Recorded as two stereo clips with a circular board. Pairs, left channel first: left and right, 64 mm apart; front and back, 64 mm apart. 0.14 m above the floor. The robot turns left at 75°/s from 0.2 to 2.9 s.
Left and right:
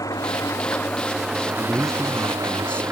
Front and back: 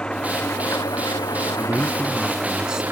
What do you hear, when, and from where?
0.0 s an engine running: 75° left; by 2.9 s 130° right
1.6 s a man speaking: 150° right; by 2.8 s 120° left